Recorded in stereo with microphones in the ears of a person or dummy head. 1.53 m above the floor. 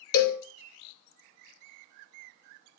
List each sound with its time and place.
0.1 s a cowbell: 75° left (ahead or behind), 0.8 m